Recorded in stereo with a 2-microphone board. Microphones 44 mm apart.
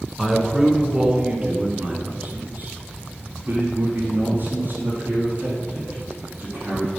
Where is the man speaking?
5° right (ahead or behind), 1.4 m; by 6.9 s 50° right (ahead or behind), 4.5 m.